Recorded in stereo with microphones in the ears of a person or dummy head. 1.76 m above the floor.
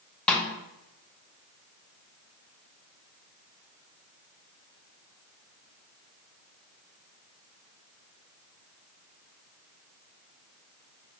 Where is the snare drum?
5° left (ahead or behind), 0.6 m.